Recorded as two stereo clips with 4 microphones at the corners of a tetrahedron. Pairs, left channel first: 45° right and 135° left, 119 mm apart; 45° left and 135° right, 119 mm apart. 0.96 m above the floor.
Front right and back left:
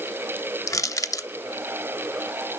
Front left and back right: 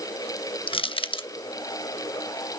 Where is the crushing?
15° left, 0.7 m.